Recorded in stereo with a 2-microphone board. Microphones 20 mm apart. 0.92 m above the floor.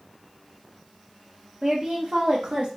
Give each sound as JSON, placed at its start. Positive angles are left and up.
{"t": 1.6, "sound": "a woman speaking", "side_deg": -40, "distance_m": 1.0}